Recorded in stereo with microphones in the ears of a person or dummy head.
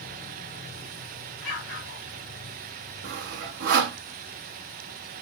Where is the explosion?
65° left (ahead or behind), 1.9 m.